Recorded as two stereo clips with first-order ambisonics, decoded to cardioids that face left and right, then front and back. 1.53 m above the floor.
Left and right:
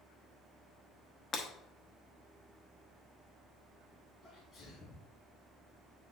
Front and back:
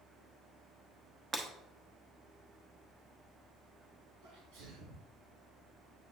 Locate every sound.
1.3 s breaking glass: 125° left, 0.9 m
4.2 s a sneeze: 175° left, 3 m